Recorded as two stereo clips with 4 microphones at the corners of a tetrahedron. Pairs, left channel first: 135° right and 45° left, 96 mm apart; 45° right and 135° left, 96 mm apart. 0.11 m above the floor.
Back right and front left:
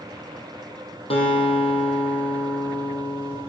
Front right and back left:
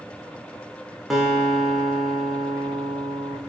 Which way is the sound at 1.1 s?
140° right.